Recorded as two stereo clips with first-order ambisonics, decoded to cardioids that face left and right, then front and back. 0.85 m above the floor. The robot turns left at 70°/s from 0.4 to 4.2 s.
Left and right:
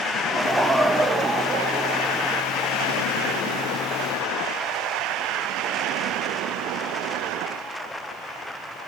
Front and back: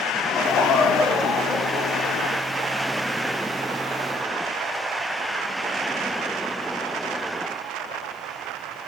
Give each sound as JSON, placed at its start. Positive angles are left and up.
{"t": 0.2, "sound": "laughter", "azimuth_deg": -5, "distance_m": 0.7}